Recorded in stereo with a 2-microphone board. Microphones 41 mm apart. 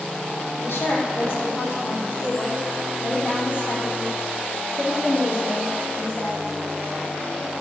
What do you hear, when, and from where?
0.6 s a woman speaking: 65° left (ahead or behind), 5 m; by 6.4 s 50° left (ahead or behind), 10.5 m